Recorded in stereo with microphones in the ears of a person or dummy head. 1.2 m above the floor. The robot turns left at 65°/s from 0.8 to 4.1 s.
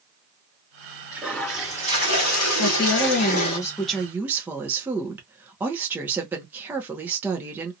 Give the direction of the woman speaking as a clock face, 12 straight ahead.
9 o'clock.